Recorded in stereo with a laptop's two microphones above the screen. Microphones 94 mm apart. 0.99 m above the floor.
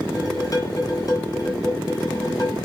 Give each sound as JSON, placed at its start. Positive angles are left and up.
{"t": 0.1, "sound": "dishes clattering", "side_deg": 40, "distance_m": 2.0}